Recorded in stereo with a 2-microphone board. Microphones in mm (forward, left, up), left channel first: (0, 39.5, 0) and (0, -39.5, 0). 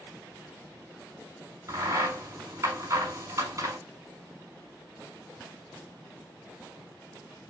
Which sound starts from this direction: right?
A crack, at 1.7 s.